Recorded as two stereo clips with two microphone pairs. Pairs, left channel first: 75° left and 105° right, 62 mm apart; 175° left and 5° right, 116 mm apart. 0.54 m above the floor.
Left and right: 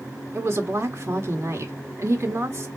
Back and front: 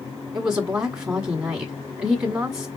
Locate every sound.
0.3 s a woman speaking: 70° right, 1.5 m